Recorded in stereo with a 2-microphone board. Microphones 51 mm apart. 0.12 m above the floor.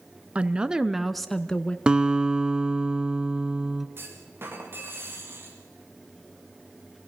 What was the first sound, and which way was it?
A woman speaking, 25° right (ahead or behind).